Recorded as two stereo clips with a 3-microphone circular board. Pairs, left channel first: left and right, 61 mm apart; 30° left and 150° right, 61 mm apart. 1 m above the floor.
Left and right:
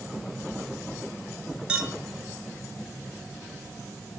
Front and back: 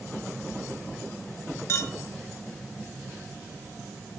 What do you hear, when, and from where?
1.7 s a clink: 15° right, 1.2 m